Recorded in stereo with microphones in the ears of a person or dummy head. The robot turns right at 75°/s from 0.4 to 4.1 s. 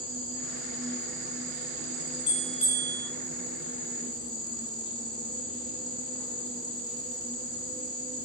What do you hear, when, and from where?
0.0 s an insect: 175° left, 1.6 m; by 8.3 s 95° left, 1.6 m
2.3 s a bell: 130° left, 0.6 m; by 3.0 s 170° right, 0.6 m